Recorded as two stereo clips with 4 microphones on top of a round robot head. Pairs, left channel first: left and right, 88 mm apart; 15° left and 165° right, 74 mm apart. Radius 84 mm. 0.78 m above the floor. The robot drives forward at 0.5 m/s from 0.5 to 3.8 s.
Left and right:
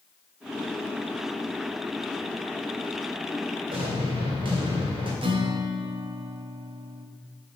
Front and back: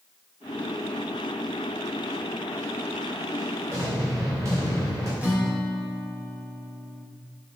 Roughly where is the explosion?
Behind right.